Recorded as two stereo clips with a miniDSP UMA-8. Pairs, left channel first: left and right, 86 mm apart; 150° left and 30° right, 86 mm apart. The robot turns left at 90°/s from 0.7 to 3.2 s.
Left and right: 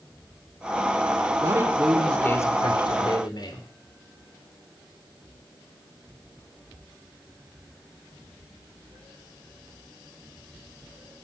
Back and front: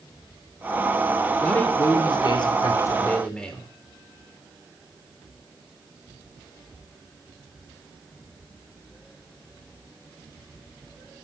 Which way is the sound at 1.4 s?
130° right.